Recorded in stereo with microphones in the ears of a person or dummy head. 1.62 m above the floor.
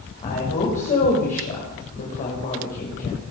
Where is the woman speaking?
45° left (ahead or behind), 7 m.